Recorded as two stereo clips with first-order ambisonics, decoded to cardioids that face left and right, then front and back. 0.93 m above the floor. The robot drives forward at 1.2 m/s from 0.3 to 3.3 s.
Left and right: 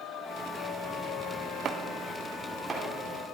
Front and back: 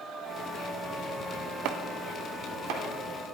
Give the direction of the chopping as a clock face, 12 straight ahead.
5 o'clock.